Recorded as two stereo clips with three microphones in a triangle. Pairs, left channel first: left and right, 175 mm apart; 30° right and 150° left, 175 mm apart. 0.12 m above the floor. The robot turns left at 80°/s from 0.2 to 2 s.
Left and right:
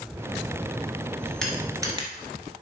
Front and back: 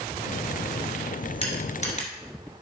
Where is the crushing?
5° left, 1.6 m; by 2.1 s 40° right, 1.6 m.